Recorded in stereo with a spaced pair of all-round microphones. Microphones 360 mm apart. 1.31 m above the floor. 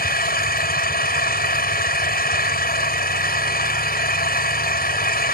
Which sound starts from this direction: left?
An engine running, at 0.0 s.